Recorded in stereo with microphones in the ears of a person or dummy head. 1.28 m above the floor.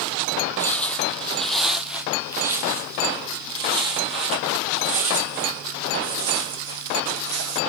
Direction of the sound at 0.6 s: 15° left (ahead or behind).